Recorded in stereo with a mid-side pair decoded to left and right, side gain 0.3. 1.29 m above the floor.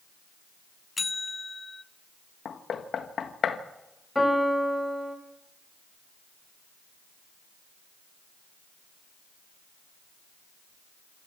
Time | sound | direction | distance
1.0 | a bell | 35° left | 0.6 m
2.5 | knocking | 70° left | 1.5 m
4.2 | a piano | 10° left | 4.5 m